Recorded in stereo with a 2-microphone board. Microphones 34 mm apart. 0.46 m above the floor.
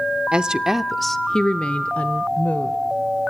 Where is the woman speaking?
30° right (ahead or behind), 1.0 m; by 2.8 s 55° left (ahead or behind), 1.6 m.